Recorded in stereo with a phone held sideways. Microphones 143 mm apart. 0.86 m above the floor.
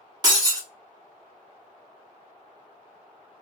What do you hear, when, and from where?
0.2 s breaking glass: 30° right (ahead or behind), 1.0 m